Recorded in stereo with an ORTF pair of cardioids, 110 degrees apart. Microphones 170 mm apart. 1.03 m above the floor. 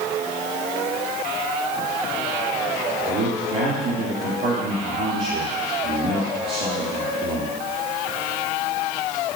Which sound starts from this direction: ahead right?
A man speaking, at 3.1 s.